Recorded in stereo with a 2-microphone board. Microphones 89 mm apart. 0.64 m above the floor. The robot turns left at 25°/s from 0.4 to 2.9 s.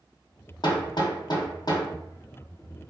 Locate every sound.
0.6 s hammering: 55° left (ahead or behind), 0.6 m; by 1.9 s 50° left (ahead or behind), 0.6 m